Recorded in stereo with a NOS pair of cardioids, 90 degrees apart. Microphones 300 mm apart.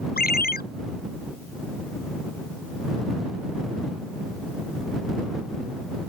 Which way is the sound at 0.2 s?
30° left.